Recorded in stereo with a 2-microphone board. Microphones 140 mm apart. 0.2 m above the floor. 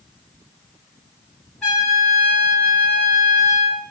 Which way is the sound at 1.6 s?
Centre (ahead or behind).